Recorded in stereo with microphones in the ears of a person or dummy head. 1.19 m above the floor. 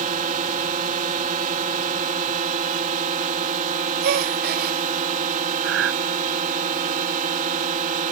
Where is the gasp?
45° right (ahead or behind).